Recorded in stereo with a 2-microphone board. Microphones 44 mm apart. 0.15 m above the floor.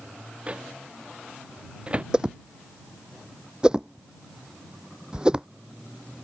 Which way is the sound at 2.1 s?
20° right (ahead or behind).